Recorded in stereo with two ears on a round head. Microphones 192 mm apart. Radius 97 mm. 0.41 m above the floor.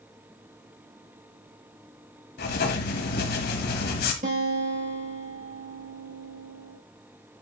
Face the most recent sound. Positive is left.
turn(degrees=-40)  # may be behind; listen again after turning